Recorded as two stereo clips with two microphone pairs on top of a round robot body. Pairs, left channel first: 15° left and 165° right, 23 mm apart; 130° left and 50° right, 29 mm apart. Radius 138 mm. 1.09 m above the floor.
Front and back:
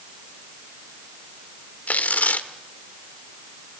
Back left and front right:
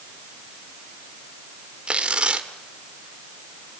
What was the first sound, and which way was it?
Tearing paper, 5° left.